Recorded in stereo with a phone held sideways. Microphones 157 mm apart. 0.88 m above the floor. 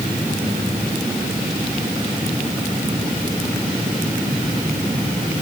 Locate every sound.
Only background noise.